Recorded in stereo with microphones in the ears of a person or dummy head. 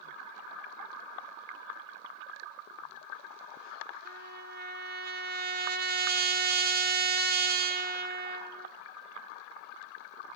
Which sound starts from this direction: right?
A trumpet, at 4.0 s.